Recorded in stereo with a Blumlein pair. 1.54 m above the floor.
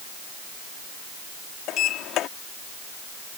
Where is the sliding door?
35° left.